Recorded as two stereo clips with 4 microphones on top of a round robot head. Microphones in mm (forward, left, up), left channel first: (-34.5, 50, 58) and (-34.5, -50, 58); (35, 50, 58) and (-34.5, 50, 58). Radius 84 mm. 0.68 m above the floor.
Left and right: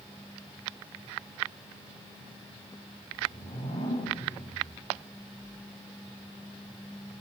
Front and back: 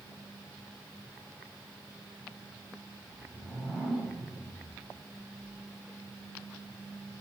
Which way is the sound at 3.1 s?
105° left.